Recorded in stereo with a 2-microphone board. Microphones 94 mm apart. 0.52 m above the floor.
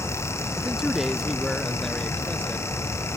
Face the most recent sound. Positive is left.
turn(degrees=15)  # may be behind; listen again after turning